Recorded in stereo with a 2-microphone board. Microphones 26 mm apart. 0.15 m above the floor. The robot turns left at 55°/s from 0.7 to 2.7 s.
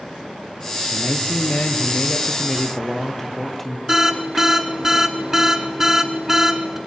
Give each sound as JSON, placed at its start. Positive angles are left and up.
{"t": 0.9, "sound": "a man speaking", "azimuth_deg": 110, "distance_m": 3.0}
{"t": 3.9, "sound": "an alarm", "side_deg": -15, "distance_m": 1.9}